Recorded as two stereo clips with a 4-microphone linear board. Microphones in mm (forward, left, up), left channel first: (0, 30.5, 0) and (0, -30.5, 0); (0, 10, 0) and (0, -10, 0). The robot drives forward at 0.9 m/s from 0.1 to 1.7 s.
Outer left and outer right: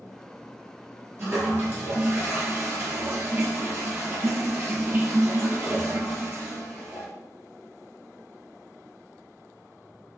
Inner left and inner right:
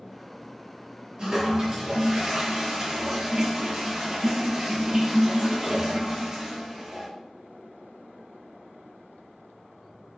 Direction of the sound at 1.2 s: 45° right (ahead or behind).